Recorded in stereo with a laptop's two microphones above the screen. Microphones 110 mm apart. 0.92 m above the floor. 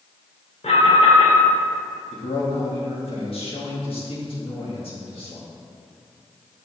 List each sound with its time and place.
0.6 s an alarm: 85° left, 2 m
2.1 s a man speaking: 60° left (ahead or behind), 1.6 m